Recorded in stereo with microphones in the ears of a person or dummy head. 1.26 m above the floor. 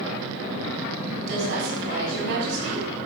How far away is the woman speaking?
About 6.5 m.